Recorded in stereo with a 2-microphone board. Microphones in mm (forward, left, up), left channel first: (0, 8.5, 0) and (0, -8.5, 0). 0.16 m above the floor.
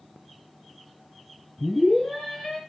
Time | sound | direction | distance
1.6 | a scream | 60° left (ahead or behind) | 3 m